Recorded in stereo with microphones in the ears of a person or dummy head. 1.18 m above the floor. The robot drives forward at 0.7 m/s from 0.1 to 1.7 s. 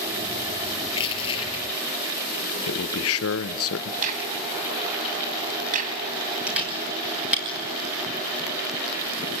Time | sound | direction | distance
0.9 | crushing | 25° left (ahead or behind) | 4.5 m
2.7 | a man speaking | 70° left (ahead or behind) | 0.9 m
4.0 | a crack | 45° right (ahead or behind) | 2.5 m
6.5 | a camera shutter | 10° right (ahead or behind) | 7 m